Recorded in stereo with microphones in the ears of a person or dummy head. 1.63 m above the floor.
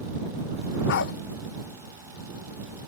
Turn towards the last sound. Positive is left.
turn(degrees=65)  # may be behind; listen again after turning